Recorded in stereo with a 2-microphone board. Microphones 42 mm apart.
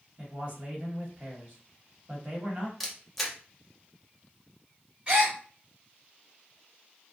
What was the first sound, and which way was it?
A man speaking, 40° right (ahead or behind).